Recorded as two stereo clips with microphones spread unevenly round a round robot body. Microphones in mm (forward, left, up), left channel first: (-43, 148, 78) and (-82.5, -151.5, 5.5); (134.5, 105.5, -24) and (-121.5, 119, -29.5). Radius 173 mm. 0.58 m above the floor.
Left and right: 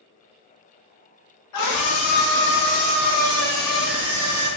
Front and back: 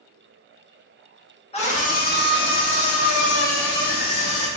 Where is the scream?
60° left, 1.3 m; by 4.5 s 25° right, 1.9 m.